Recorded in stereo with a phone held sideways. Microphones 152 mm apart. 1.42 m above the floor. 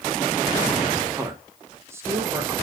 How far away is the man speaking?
About 1.0 m.